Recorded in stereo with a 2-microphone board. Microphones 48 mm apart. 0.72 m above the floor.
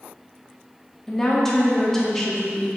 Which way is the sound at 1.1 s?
10° left (ahead or behind).